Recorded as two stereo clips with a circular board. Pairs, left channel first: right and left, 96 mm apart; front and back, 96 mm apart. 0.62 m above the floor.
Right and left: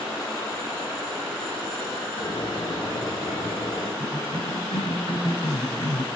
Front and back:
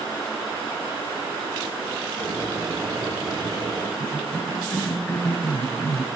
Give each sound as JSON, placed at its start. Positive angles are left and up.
{"t": 2.2, "sound": "boiling", "azimuth_deg": -125, "distance_m": 4.0}
{"t": 4.0, "sound": "a cough", "azimuth_deg": -70, "distance_m": 5.0}